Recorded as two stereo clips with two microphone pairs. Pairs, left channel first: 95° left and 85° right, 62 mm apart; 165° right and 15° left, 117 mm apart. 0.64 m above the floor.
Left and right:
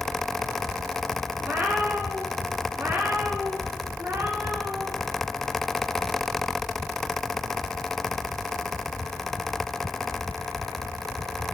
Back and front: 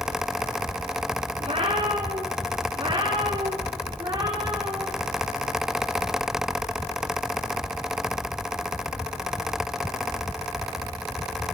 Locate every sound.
1.4 s a cat meowing: 20° right, 8 m; by 4.9 s 40° right, 11.5 m